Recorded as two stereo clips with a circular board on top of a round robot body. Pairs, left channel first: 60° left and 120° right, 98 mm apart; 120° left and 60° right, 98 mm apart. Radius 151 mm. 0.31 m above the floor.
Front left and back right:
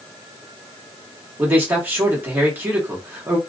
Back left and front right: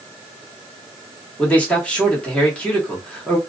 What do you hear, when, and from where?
1.4 s a man speaking: 170° right, 1.5 m